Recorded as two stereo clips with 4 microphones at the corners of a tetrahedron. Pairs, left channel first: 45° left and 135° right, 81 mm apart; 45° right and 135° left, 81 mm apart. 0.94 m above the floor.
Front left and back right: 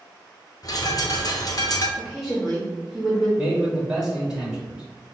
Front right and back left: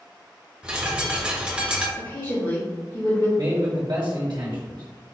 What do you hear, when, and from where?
0.6 s a bird: 60° left, 0.7 m
2.0 s a woman speaking: 45° right, 1.8 m
3.4 s a man speaking: 150° left, 1.3 m